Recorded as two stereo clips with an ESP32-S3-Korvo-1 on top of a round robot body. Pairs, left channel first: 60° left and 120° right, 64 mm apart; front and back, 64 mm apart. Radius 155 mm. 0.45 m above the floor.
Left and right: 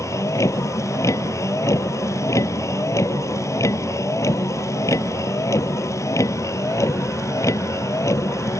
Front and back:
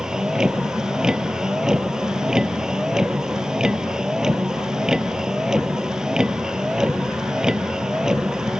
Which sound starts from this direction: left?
A vehicle, at 0.0 s.